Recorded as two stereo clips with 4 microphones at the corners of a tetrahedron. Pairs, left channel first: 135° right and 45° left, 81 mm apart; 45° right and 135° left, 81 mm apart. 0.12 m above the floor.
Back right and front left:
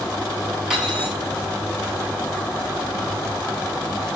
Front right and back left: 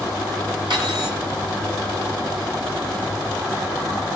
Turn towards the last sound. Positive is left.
turn(degrees=125)